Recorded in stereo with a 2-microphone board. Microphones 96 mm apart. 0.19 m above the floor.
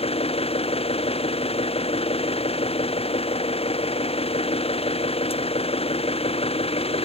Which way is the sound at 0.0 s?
85° left.